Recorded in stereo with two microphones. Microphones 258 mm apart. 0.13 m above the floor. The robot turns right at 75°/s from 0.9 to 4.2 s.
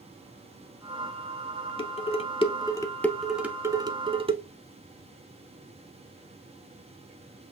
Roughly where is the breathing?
I don't hear breathing.